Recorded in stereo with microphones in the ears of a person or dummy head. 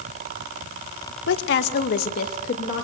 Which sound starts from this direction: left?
A woman speaking, at 1.3 s.